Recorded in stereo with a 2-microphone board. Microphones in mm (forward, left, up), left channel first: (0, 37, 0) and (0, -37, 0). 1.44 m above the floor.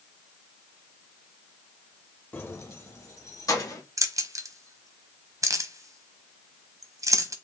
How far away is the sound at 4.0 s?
About 0.8 m.